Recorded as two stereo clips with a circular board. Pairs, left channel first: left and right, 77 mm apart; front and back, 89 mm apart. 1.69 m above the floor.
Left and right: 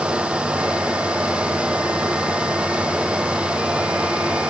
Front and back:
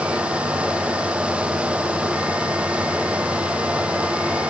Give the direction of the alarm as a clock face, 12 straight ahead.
I don't hear an alarm.